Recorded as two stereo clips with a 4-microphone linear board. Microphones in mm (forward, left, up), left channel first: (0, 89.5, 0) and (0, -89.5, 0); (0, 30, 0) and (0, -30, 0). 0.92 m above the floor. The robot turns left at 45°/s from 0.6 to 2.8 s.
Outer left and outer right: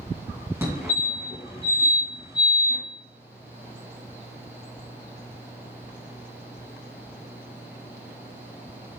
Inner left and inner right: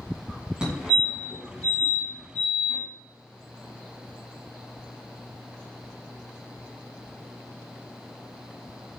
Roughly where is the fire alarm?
Centre.